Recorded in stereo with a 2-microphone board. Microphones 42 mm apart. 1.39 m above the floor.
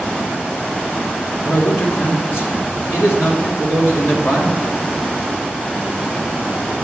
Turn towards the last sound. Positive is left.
turn(degrees=75)  # may be behind; listen again after turning